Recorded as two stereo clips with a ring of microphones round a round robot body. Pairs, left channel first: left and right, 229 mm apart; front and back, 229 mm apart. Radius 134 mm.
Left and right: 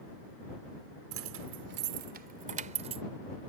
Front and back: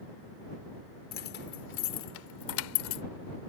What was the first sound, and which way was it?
Keys jangling, 55° right.